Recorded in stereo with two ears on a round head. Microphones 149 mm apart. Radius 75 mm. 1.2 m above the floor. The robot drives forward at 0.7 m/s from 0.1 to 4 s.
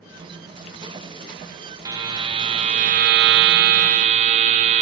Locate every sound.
1.9 s a buzzer: 20° right (ahead or behind), 1.2 m; by 4.8 s 45° right (ahead or behind), 0.6 m